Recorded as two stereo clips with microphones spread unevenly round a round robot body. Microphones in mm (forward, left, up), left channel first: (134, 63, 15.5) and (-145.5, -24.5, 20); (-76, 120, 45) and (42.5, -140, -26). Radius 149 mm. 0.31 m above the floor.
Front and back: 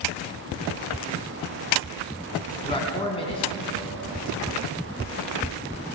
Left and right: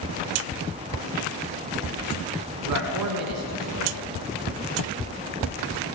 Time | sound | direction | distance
2.6 | a man speaking | 55° right | 3.5 m